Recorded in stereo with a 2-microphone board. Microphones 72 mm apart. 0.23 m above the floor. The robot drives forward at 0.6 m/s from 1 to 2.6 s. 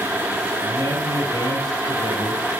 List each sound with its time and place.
0.6 s a man speaking: 65° right (ahead or behind), 5 m; by 2.5 s 70° right (ahead or behind), 5 m